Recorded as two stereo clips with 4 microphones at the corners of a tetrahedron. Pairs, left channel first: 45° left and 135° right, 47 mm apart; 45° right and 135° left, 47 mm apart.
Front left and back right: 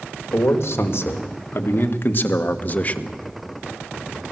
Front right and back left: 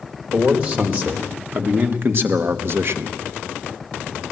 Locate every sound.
0.3 s a man speaking: 75° left, 2.5 m; by 3.2 s 110° left, 1.2 m